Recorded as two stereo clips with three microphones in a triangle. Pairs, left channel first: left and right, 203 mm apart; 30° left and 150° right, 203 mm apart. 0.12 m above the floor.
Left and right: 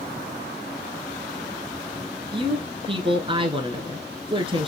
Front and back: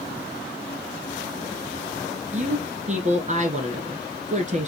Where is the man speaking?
135° right, 1.4 m.